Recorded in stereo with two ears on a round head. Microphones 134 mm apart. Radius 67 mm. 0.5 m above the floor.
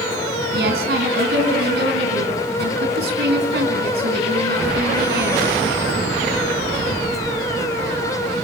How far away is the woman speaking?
About 5 m.